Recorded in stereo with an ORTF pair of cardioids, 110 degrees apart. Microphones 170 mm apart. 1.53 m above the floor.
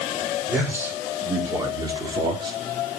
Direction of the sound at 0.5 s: 10° right.